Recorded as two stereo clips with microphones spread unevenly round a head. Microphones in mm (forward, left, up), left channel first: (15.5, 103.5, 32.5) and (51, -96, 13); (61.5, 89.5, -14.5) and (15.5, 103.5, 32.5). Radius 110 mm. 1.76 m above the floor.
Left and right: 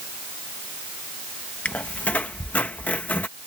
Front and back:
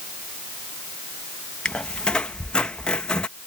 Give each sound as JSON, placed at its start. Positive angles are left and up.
{"t": 1.6, "sound": "a squeak", "azimuth_deg": 170}